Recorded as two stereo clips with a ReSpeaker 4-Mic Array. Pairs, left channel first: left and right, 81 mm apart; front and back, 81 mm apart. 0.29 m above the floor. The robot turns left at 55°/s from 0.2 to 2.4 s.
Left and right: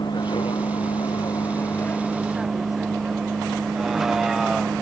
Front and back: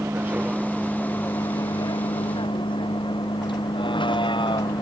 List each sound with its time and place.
0.0 s a vehicle: 115° left; by 4.8 s 5° right